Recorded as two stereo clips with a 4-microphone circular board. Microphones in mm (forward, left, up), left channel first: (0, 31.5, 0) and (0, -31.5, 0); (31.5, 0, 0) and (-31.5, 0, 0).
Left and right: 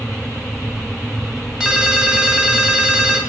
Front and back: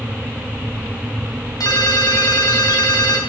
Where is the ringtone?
10° right, 2.5 m.